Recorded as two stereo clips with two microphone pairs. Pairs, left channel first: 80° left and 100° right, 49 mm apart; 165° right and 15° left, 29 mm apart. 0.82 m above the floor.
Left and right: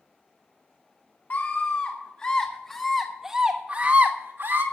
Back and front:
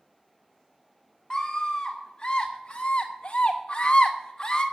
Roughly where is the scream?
Behind left.